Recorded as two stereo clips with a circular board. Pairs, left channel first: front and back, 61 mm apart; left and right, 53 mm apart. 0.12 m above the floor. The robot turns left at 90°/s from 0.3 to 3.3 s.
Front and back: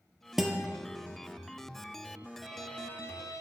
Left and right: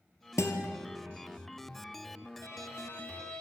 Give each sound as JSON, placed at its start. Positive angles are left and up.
{"t": 0.4, "sound": "a guitar", "azimuth_deg": 90, "distance_m": 0.7}
{"t": 2.4, "sound": "a violin", "azimuth_deg": 95, "distance_m": 1.1}